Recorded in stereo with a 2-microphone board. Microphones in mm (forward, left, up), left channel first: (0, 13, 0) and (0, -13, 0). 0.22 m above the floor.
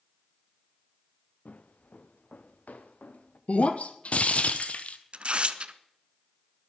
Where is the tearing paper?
45° right (ahead or behind), 0.8 m.